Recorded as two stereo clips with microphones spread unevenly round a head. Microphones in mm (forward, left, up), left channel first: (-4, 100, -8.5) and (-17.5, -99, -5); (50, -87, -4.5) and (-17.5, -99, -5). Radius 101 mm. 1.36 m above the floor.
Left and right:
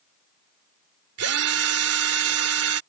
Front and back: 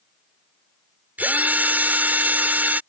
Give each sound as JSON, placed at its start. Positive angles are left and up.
{"t": 1.2, "sound": "a drill", "azimuth_deg": -105}